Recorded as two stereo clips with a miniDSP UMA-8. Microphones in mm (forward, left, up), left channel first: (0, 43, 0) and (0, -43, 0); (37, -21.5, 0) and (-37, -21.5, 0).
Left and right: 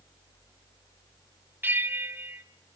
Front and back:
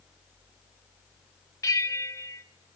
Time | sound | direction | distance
1.6 | a bell | 30° right | 0.8 m